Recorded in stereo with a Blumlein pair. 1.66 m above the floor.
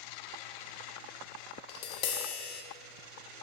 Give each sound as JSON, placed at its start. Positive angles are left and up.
{"t": 1.7, "sound": "tapping", "azimuth_deg": 45, "distance_m": 0.5}